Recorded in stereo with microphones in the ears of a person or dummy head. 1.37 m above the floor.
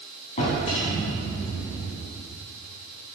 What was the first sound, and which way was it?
A drawer, 40° left (ahead or behind).